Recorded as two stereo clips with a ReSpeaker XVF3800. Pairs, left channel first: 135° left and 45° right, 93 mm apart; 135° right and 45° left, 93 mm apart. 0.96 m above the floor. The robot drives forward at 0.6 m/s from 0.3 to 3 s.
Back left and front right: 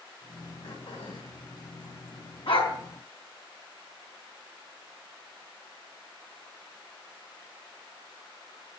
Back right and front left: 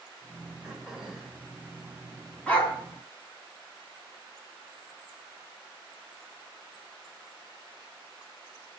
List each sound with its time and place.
0.6 s throat clearing: 130° left, 4 m; by 1.4 s 135° left, 4.5 m
2.5 s a dog barking: 150° left, 3.5 m